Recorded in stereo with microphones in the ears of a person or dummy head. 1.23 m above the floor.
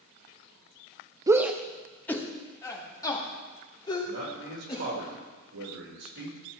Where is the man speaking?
70° right (ahead or behind), 4 m.